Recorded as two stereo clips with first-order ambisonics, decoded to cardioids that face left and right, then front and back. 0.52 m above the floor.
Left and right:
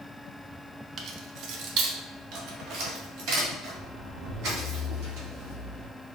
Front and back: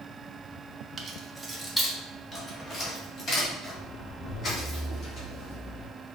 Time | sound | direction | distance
1.0 | keys jangling | 125° right | 0.6 m